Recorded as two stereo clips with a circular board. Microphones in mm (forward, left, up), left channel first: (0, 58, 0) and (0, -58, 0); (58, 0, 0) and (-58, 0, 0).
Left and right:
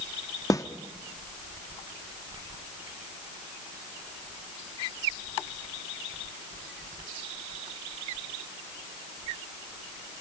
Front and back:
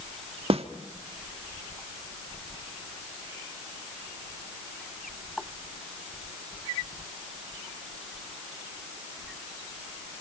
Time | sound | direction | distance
0.5 | a snare drum | 150° left | 1.3 m